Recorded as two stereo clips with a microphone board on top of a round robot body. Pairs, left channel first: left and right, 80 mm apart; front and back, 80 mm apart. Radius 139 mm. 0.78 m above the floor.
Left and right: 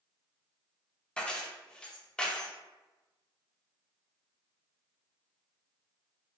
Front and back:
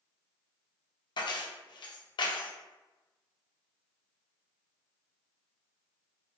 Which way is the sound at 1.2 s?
10° left.